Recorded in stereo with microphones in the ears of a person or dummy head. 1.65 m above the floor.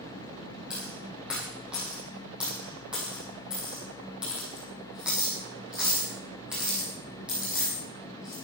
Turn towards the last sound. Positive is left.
turn(degrees=-5)  # may be behind; listen again after turning